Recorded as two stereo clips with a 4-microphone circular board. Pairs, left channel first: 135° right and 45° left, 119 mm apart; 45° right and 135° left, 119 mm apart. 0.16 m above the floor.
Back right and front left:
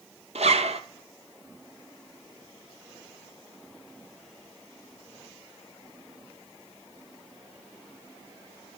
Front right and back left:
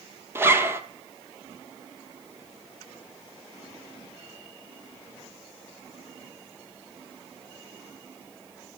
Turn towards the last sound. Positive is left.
turn(degrees=65)